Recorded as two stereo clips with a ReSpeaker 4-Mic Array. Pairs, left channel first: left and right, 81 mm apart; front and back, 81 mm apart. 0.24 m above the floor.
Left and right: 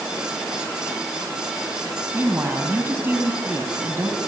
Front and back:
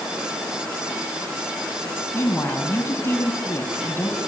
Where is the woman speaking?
40° right, 2 m.